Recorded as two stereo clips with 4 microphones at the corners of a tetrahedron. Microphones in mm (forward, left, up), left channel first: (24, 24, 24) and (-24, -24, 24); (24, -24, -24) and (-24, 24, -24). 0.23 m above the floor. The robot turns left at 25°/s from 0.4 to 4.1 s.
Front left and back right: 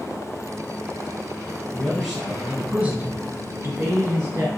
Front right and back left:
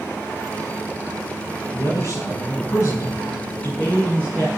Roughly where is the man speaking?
Ahead right.